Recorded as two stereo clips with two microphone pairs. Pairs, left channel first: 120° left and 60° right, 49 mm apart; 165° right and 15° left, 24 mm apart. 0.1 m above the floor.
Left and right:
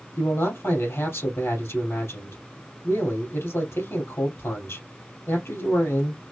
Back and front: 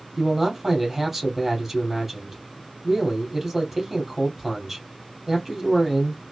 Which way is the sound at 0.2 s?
100° left.